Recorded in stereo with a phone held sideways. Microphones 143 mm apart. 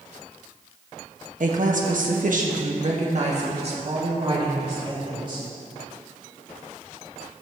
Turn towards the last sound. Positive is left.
turn(degrees=-35)  # may be behind; listen again after turning